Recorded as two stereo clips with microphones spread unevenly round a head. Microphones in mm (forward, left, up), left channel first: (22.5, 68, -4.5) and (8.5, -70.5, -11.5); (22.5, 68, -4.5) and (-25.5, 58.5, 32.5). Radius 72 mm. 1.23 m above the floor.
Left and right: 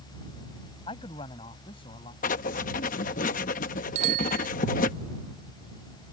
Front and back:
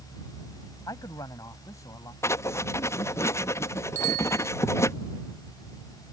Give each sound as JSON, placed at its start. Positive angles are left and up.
{"t": 0.9, "sound": "a man speaking", "azimuth_deg": 30}
{"t": 2.2, "sound": "writing", "azimuth_deg": 60}
{"t": 4.0, "sound": "a bicycle bell", "azimuth_deg": -60}